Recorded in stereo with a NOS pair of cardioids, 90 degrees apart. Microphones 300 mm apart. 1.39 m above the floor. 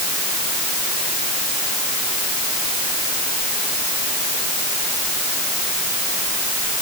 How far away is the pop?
No pop in this recording.